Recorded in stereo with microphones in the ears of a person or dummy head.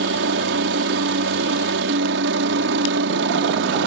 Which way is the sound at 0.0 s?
60° right (ahead or behind).